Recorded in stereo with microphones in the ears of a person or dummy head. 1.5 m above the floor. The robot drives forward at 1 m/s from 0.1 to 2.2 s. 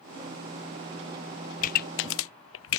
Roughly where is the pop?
Left.